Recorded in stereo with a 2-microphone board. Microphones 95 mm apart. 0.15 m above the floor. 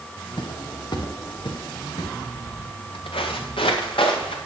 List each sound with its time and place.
0.4 s footsteps: 60° left (ahead or behind), 1.8 m; by 2.1 s 55° left (ahead or behind), 3.5 m
2.4 s footsteps: 80° left, 1.3 m; by 4.4 s 85° left, 2.5 m